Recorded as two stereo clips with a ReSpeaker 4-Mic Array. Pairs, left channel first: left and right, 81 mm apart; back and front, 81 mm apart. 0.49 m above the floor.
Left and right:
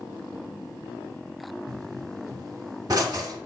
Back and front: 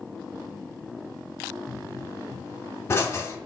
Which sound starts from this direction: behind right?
A pop, at 1.7 s.